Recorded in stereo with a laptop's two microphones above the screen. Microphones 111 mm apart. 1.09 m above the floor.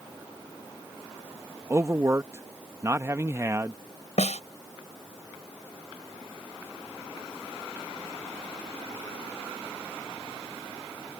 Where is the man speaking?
25° right (ahead or behind).